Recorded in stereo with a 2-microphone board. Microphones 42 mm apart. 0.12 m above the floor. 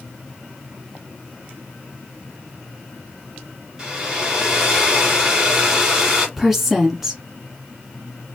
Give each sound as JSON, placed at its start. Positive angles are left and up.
{"t": 3.8, "sound": "a hair dryer", "side_deg": -15, "distance_m": 2.0}
{"t": 6.4, "sound": "a woman speaking", "side_deg": -5, "distance_m": 1.1}